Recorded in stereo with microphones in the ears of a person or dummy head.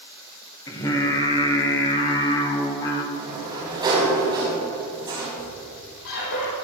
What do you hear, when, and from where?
0.7 s singing: 20° left (ahead or behind), 1.5 m
3.1 s a sliding door: 20° right (ahead or behind), 5 m
5.4 s a squeak: 70° left (ahead or behind), 5.5 m